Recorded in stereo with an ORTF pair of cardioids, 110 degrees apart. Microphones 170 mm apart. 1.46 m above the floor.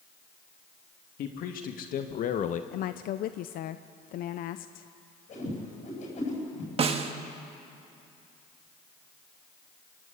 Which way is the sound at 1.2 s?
65° left.